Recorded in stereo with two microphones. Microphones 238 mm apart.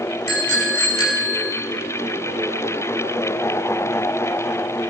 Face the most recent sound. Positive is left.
turn(degrees=85)